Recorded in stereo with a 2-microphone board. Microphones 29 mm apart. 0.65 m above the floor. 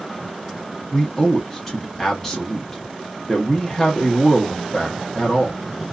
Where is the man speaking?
10° left (ahead or behind), 0.9 m.